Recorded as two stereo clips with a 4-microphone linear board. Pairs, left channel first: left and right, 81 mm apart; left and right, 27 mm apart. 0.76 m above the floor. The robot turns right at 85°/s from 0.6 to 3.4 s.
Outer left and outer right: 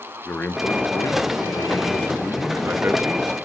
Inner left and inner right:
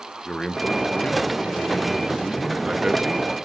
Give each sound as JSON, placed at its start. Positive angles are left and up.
{"t": 0.2, "sound": "a man speaking", "azimuth_deg": 30, "distance_m": 0.6}